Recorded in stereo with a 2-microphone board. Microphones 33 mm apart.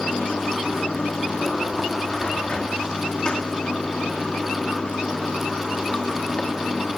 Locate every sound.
0.0 s running water: 30° left (ahead or behind), 1.7 m